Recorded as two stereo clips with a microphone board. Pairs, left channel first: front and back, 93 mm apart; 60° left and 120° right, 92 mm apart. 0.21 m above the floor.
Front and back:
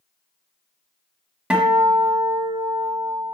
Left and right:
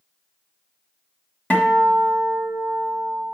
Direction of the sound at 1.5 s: 115° left.